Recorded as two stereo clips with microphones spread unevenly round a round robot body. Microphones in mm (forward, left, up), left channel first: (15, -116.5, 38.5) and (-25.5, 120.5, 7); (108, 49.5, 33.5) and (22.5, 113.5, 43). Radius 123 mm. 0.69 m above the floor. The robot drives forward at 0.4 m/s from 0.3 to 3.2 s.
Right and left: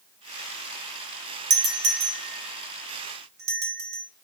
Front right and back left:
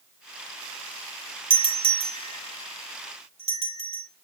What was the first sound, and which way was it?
A doorbell, 120° left.